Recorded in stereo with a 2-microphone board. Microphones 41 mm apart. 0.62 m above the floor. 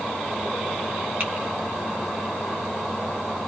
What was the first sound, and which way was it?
Typing on a keyboard, 45° right (ahead or behind).